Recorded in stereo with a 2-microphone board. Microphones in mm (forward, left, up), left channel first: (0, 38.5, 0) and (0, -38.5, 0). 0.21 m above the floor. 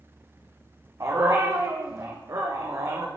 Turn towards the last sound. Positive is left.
turn(degrees=-40)  # may be behind; listen again after turning